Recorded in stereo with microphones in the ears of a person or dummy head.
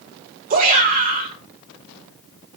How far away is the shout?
About 5 m.